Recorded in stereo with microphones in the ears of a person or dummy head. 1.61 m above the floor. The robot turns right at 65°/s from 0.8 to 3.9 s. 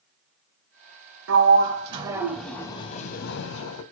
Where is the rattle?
I don't hear a rattle.